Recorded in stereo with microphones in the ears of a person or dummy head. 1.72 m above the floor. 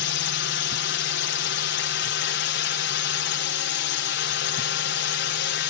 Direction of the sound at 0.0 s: 55° left (ahead or behind).